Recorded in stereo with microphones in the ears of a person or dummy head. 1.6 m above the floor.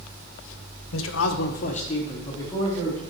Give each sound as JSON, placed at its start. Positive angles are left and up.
{"t": 0.9, "sound": "a man speaking", "side_deg": 70, "distance_m": 0.8}